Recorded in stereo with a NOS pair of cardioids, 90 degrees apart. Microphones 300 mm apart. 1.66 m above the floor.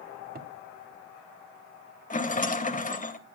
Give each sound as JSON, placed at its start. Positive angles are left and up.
{"t": 0.3, "sound": "a cupboard door", "azimuth_deg": -30, "distance_m": 1.8}
{"t": 2.1, "sound": "a rattle", "azimuth_deg": 25, "distance_m": 2.0}